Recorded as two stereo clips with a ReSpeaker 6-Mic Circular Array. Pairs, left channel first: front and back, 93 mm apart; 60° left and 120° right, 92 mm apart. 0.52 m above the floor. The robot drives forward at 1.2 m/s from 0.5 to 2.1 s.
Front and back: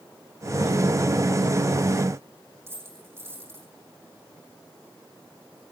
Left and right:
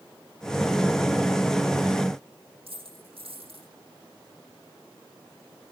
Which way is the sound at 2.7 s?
115° right.